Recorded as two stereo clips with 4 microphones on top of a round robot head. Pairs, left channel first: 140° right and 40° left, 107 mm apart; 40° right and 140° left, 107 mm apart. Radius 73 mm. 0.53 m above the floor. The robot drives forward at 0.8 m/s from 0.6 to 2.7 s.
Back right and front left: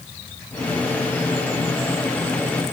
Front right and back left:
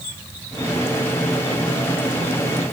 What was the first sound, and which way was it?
Only background noise.